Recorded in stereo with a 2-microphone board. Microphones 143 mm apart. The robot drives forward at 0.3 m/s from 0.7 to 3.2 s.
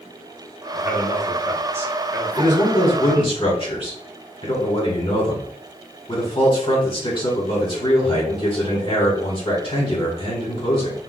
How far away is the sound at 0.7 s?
About 2.0 m.